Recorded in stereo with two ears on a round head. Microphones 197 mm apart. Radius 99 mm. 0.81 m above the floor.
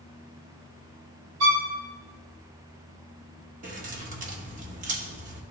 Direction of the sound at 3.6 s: 35° right (ahead or behind).